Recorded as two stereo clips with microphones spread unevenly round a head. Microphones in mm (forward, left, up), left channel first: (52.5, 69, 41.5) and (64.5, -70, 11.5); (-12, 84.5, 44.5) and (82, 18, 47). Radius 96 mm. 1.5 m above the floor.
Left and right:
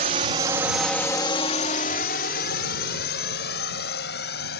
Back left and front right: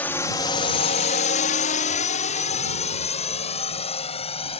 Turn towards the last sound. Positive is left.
turn(degrees=115)